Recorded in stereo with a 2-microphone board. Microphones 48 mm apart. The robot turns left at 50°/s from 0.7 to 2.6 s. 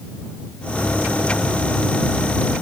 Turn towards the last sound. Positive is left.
No sound to turn to.